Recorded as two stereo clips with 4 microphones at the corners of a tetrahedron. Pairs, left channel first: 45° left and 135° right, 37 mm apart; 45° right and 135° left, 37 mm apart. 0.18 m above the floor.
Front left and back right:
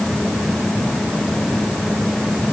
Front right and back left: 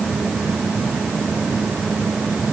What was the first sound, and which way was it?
Only background noise.